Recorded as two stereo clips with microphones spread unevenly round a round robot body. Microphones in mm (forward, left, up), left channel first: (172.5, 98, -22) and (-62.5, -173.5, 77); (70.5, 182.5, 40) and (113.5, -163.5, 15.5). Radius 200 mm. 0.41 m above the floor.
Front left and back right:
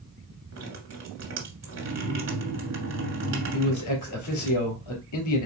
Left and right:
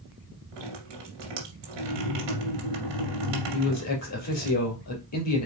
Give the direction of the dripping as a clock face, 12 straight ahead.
3 o'clock.